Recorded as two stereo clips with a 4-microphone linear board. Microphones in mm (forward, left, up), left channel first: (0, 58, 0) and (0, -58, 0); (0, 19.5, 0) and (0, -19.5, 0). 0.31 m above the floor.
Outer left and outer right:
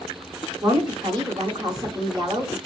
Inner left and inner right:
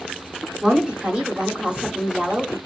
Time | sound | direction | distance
0.6 | a woman speaking | 35° right (ahead or behind) | 1.3 m